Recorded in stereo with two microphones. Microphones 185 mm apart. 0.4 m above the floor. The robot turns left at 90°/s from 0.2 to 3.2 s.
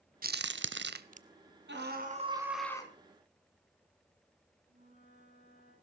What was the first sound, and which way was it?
A crack, 50° right (ahead or behind).